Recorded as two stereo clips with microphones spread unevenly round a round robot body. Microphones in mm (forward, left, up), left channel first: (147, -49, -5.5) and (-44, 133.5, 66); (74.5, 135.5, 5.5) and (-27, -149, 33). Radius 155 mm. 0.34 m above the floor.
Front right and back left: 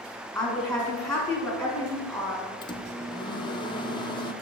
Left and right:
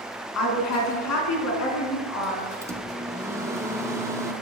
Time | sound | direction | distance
0.3 | a woman speaking | 40° left | 3.5 m
2.6 | a microwave | 25° right | 0.8 m